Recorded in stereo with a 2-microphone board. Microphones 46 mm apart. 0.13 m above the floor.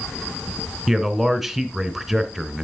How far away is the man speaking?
About 1.1 m.